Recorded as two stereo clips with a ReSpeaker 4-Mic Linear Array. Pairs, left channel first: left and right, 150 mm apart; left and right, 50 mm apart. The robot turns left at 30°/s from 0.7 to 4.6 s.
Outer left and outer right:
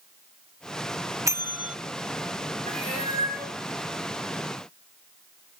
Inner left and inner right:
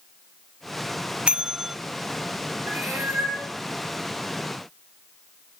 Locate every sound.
1.3 s a bell: 20° right (ahead or behind), 0.5 m; by 1.8 s 5° right (ahead or behind), 0.5 m
2.7 s a cat meowing: 45° right (ahead or behind), 9.5 m; by 3.5 s 20° right (ahead or behind), 9.5 m